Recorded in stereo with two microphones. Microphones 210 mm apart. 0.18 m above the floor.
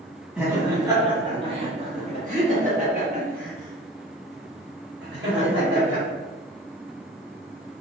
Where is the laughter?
5° right (ahead or behind), 1.4 m; by 6.0 s 65° right (ahead or behind), 3.5 m.